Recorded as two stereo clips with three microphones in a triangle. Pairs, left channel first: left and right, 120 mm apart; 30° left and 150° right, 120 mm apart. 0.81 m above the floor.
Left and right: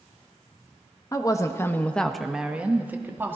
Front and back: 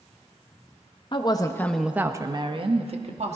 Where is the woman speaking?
45° left, 0.9 m; by 3.4 s 160° right, 1.6 m.